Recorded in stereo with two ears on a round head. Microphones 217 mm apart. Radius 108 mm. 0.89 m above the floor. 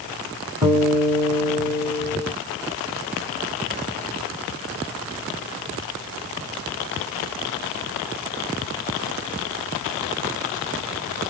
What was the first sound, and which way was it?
A guitar, 20° right (ahead or behind).